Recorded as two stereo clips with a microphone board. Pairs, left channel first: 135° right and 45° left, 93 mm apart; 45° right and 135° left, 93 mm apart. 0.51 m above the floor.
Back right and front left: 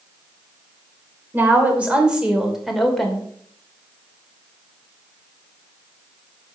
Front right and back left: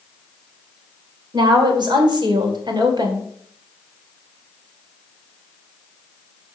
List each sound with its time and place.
1.3 s a woman speaking: 110° left, 2.5 m; by 3.3 s 145° left, 2 m